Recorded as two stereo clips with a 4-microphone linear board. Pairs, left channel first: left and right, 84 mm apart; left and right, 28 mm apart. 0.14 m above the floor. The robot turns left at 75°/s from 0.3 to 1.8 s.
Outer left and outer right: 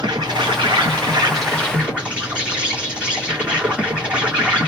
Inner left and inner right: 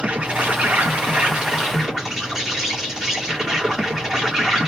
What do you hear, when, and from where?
0.0 s an insect: 55° right, 2.5 m; by 4.7 s 165° right, 2.5 m